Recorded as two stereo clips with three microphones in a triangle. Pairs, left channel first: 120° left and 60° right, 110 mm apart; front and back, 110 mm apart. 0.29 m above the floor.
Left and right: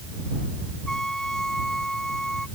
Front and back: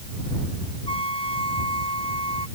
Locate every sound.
0.9 s a trumpet: 35° left